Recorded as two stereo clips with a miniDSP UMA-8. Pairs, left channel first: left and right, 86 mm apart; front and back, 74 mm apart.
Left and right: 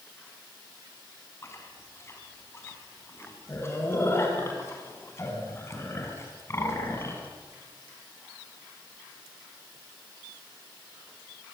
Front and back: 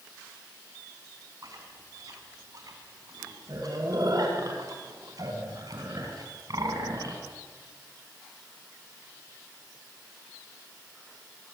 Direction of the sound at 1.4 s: 150° left.